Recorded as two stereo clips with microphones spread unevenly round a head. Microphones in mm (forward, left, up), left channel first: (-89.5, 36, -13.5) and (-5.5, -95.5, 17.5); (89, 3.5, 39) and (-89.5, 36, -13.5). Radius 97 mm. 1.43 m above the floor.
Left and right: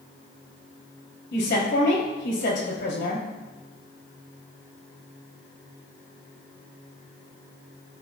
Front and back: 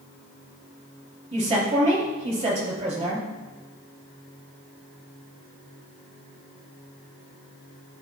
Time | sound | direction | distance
1.3 | a woman speaking | 110° left | 3 m